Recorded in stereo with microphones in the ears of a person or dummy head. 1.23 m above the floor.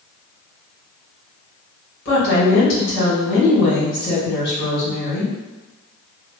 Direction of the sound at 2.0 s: 60° left (ahead or behind).